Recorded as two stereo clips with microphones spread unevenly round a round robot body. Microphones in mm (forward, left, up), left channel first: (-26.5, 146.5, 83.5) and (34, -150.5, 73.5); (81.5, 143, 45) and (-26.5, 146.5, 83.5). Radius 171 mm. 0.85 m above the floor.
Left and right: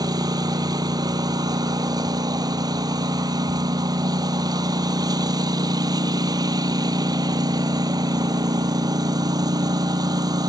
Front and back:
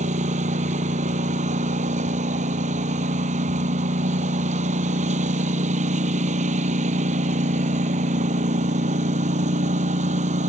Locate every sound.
0.0 s a lawn mower: 155° right